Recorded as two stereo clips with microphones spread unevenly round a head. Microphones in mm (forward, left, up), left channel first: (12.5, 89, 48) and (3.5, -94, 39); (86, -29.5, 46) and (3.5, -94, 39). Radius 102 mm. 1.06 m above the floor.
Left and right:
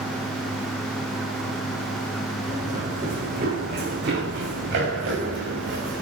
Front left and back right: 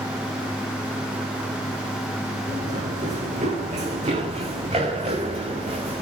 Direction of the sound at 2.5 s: 150° right.